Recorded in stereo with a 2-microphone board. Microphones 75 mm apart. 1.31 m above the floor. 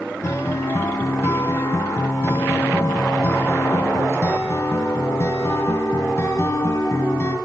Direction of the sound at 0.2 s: 40° left (ahead or behind).